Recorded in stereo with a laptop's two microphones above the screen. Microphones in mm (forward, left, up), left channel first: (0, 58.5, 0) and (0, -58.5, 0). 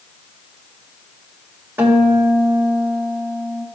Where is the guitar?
15° right (ahead or behind), 1.7 m.